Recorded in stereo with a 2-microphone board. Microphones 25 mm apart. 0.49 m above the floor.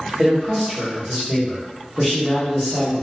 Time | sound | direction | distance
0.2 | a man speaking | 25° right (ahead or behind) | 1.6 m